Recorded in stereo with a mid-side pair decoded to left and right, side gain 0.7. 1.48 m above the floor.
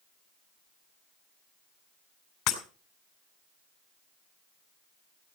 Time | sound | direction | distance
2.5 | breaking glass | 65° left | 4 m